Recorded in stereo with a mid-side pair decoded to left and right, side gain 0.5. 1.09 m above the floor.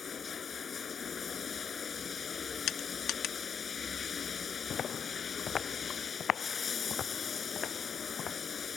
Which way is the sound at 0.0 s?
40° left.